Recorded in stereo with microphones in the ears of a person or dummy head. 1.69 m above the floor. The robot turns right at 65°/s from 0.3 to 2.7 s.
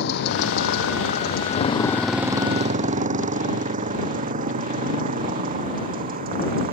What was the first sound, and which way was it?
A motorcycle, 60° left (ahead or behind).